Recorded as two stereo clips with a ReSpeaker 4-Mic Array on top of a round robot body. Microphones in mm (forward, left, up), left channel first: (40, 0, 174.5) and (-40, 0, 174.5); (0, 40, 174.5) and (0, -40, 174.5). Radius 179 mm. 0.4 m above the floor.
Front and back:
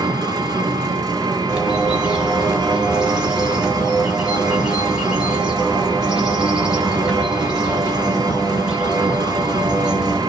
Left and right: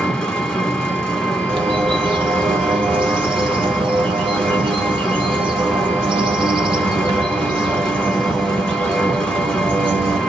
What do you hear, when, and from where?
0.0 s an engine running: 170° left, 1.2 m
1.5 s a bird: 100° right, 0.6 m